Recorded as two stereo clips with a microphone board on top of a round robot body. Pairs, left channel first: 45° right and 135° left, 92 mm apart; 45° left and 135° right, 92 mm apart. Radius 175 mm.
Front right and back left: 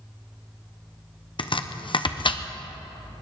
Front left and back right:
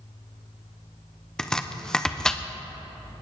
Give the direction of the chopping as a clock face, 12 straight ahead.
1 o'clock.